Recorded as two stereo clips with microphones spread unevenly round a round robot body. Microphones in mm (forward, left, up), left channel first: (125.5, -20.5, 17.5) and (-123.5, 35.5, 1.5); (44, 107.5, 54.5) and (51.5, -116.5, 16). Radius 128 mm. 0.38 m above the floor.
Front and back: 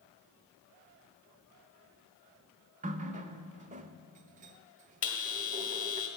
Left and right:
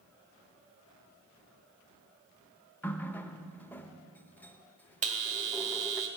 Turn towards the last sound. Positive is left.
turn(degrees=-65)